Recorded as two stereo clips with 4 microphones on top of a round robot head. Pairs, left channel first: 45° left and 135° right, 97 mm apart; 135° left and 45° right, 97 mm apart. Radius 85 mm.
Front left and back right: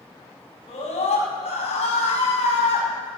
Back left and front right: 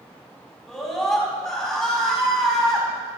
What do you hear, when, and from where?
0.7 s a scream: 50° left, 5.5 m